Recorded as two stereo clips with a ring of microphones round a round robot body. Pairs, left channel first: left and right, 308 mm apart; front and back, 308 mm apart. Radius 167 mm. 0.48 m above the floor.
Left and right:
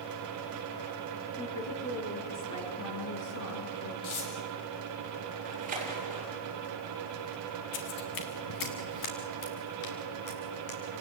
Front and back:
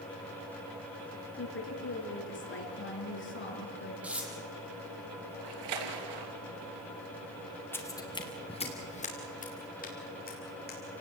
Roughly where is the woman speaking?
Ahead left.